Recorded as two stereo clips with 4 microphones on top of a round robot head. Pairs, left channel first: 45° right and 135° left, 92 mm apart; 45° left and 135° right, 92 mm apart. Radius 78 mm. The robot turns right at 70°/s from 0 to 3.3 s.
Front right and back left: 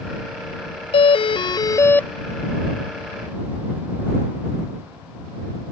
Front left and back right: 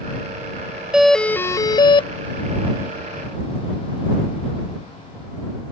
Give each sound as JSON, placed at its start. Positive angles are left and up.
{"t": 0.9, "sound": "a doorbell", "azimuth_deg": -50}